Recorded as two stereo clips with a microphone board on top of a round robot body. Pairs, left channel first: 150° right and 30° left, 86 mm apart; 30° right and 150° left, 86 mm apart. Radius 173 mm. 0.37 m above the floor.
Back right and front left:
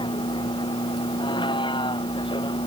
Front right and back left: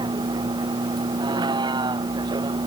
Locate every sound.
0.0 s a vehicle: 175° right